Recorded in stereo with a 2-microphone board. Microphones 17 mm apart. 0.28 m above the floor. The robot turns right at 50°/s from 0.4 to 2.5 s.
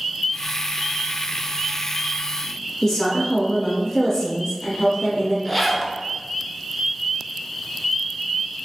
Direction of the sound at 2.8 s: 40° left (ahead or behind).